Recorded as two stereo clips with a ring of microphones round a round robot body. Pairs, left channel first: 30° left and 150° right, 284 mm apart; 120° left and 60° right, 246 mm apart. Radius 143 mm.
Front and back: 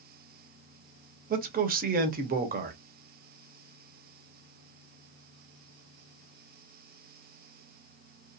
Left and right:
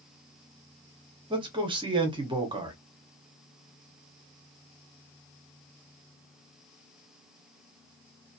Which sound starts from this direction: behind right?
A man speaking, at 1.3 s.